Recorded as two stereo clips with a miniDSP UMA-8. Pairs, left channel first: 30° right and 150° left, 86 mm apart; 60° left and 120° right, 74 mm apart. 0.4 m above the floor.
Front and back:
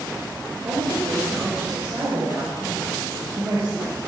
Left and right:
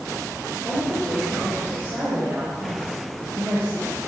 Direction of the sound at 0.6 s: 175° left.